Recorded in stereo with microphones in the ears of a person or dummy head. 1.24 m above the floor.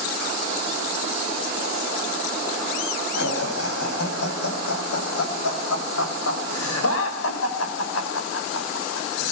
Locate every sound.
3.1 s laughter: 85° left, 8.5 m